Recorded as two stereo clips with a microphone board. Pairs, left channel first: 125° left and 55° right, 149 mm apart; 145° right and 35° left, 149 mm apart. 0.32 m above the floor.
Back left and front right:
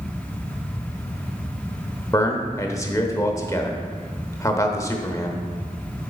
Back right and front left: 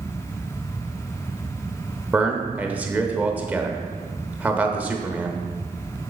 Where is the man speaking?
100° left, 0.9 m.